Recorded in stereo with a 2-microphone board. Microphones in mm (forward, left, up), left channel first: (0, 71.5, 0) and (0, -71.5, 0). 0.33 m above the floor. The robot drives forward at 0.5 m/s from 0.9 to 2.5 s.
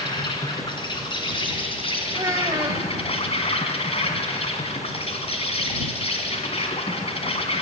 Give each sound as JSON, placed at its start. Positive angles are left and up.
{"t": 0.0, "sound": "an insect", "side_deg": 35, "distance_m": 3.0}
{"t": 2.1, "sound": "a child speaking", "side_deg": -25, "distance_m": 0.8}